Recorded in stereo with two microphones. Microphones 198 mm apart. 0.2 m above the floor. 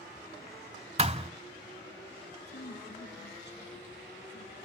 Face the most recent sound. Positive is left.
turn(degrees=60)  # may be behind; listen again after turning